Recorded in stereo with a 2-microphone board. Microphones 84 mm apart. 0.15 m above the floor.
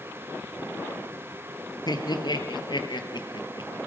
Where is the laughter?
55° left (ahead or behind), 3 m; by 3.7 s 65° left (ahead or behind), 3.5 m.